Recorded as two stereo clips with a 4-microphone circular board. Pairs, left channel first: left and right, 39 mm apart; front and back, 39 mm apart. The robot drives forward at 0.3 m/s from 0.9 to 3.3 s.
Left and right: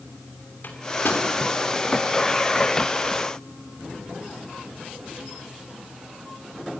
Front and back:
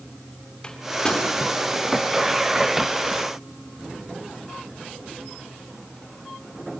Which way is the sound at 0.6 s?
70° left.